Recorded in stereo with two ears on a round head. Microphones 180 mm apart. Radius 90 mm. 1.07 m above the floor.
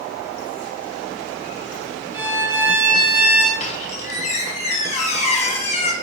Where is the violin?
10° right (ahead or behind), 0.9 m.